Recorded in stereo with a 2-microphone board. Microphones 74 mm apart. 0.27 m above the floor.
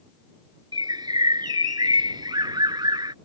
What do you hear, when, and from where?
0.7 s a bird: 80° right